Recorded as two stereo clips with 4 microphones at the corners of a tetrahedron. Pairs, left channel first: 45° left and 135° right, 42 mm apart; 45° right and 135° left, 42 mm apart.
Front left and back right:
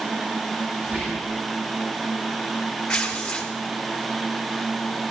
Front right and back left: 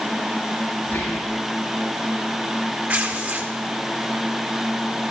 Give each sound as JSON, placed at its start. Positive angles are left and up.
{"t": 0.8, "sound": "whispering", "azimuth_deg": -85, "distance_m": 7.0}
{"t": 2.9, "sound": "tearing paper", "azimuth_deg": 115, "distance_m": 1.7}